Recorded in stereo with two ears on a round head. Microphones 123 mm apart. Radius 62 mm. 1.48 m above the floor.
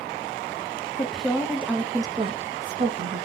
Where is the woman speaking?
5° left (ahead or behind), 1.0 m; by 3.3 s 60° right (ahead or behind), 0.7 m.